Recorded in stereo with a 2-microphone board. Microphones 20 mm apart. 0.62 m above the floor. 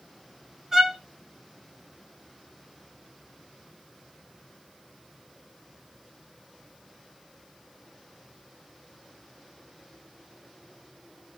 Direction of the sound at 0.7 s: 20° right (ahead or behind).